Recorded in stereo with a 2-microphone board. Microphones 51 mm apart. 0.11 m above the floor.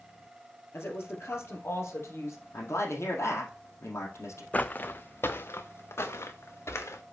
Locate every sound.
0.7 s a woman speaking: 55° left (ahead or behind), 3 m; by 2.4 s 65° left (ahead or behind), 3.5 m
2.5 s a man speaking: 65° left (ahead or behind), 3 m
4.5 s footsteps: 30° left (ahead or behind), 0.6 m; by 7.0 s 65° left (ahead or behind), 1.9 m